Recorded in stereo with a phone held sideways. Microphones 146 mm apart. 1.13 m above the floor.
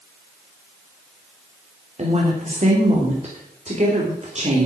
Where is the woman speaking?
45° right (ahead or behind), 3.5 m.